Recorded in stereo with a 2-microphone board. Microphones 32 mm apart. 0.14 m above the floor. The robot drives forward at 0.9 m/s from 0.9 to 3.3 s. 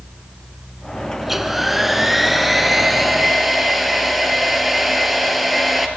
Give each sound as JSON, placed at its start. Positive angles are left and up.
{"t": 1.2, "sound": "a hair dryer", "side_deg": -10, "distance_m": 1.5}